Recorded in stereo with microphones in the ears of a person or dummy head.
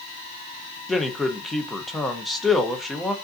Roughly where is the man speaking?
Centre.